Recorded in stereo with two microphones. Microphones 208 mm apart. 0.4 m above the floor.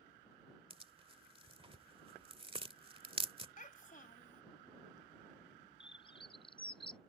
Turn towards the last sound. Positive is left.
turn(degrees=25)  # may be behind; listen again after turning